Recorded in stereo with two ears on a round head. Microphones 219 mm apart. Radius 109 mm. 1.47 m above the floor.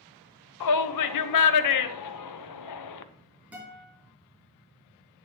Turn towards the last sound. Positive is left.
turn(degrees=-5)  # may be behind; listen again after turning